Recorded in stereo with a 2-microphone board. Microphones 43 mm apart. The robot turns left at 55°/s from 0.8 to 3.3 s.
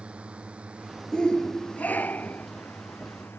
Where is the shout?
150° left; by 2.5 s 75° left.